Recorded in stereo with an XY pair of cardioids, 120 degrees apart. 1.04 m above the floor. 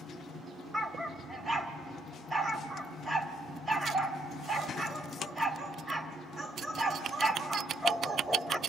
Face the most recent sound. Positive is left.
turn(degrees=-15)